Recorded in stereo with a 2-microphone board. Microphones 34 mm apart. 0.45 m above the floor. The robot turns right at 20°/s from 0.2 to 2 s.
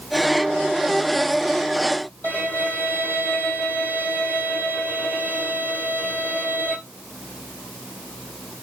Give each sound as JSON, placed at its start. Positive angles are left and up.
{"t": 2.2, "sound": "a violin", "side_deg": 70, "distance_m": 3.5}